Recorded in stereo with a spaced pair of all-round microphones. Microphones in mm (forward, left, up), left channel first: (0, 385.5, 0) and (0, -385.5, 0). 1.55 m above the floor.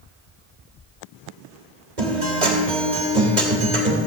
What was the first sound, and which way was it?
A guitar, 65° right (ahead or behind).